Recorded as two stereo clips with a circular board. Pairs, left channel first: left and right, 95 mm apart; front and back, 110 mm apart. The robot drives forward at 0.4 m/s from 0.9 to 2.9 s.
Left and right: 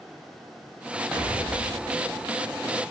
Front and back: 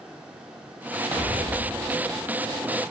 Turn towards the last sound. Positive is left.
turn(degrees=-175)